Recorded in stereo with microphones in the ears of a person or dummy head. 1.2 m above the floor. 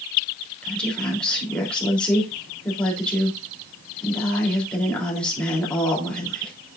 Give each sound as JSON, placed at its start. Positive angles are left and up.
{"t": 0.6, "sound": "a woman speaking", "side_deg": 5, "distance_m": 3.0}